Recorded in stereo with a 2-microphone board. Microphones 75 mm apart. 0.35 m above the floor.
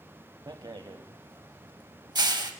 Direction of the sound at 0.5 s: 75° right (ahead or behind).